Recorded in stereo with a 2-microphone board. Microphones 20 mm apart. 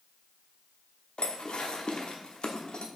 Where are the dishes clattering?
60° left (ahead or behind), 0.9 m.